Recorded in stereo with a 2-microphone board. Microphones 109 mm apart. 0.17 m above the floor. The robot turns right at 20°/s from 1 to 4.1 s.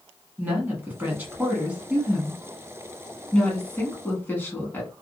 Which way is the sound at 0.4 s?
20° right (ahead or behind).